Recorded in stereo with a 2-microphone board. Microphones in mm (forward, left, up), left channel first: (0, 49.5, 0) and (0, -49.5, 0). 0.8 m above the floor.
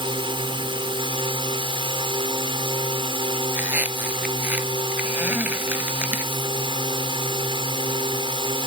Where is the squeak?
15° right (ahead or behind).